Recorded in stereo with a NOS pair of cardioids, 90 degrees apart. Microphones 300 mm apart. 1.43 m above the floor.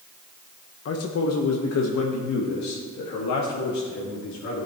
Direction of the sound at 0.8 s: 50° left.